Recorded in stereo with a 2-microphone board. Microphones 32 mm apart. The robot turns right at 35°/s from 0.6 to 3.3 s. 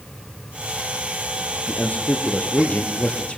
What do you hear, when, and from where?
1.7 s a man speaking: 80° left, 3 m; by 3.4 s 140° left, 3 m